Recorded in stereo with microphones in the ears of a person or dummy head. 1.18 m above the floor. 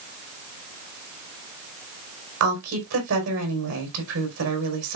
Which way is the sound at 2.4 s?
70° right (ahead or behind).